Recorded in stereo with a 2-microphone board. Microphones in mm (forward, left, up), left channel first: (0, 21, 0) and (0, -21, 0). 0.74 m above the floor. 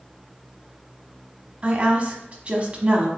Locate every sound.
1.6 s a woman speaking: 30° right (ahead or behind), 1.1 m